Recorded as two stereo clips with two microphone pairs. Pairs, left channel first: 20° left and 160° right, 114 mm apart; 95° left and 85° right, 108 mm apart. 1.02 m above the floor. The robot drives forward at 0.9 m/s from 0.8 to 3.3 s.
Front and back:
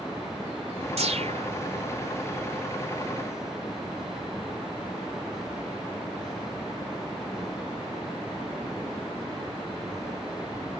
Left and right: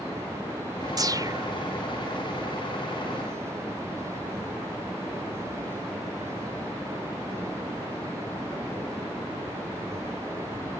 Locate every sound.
1.0 s a whoosh: 140° right; by 1.5 s 145° right